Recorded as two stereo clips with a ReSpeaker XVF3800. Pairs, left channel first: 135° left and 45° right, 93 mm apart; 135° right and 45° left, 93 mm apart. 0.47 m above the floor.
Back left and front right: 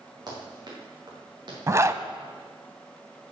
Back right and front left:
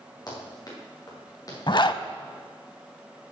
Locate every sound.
0.3 s running footsteps: 90° right, 5 m; by 1.6 s 85° right, 4.5 m
1.7 s a zipper: 100° right, 0.5 m